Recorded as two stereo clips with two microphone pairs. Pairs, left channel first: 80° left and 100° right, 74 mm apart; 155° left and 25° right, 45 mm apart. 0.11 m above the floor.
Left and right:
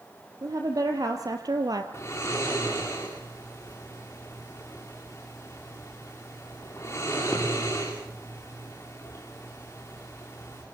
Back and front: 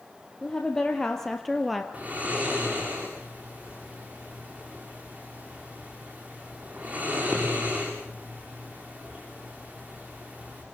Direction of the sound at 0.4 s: 135° right.